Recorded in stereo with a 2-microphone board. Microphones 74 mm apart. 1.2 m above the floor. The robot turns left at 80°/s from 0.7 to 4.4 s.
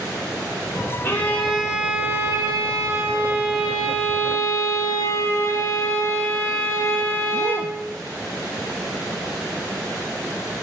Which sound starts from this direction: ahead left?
A violin, at 1.0 s.